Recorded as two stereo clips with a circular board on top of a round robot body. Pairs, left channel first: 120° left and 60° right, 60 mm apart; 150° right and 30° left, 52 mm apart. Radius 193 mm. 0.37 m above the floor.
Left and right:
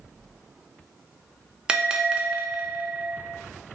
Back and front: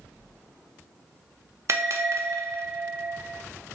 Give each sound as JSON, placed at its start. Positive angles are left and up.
{"t": 1.7, "sound": "a bell", "azimuth_deg": 15, "distance_m": 0.7}